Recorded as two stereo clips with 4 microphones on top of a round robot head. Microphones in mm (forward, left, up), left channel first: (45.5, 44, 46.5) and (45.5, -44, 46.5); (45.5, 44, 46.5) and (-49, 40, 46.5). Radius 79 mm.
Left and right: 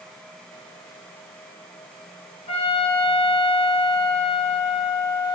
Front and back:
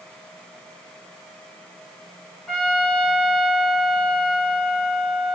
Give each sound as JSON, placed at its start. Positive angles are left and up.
{"t": 2.5, "sound": "a trumpet", "azimuth_deg": 85, "distance_m": 7.0}